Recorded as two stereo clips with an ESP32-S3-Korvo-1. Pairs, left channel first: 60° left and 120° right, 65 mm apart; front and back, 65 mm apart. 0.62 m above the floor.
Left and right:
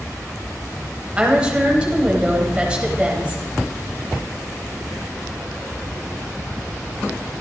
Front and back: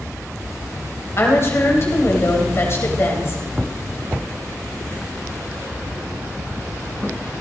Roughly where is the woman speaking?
Ahead right.